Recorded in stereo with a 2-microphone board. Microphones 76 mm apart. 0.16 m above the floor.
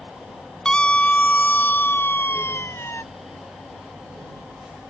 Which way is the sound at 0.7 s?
10° left (ahead or behind).